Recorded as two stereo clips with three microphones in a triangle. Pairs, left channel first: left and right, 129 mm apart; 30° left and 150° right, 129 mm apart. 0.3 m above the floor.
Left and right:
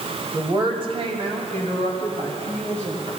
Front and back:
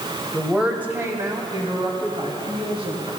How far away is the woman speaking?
About 1.4 m.